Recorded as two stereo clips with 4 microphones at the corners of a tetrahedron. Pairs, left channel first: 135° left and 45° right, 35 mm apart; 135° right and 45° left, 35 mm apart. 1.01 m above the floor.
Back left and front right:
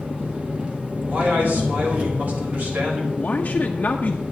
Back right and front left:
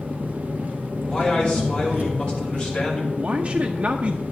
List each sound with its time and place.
0.0 s an engine running: 10° left, 1.3 m
1.1 s a man speaking: 70° right, 4 m
3.2 s a man speaking: 90° left, 0.7 m